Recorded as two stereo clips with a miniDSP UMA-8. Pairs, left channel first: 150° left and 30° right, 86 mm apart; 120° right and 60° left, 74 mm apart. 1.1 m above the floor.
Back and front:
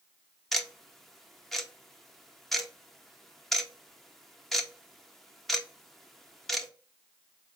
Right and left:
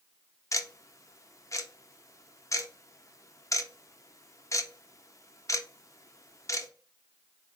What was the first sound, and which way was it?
Ticking, 120° right.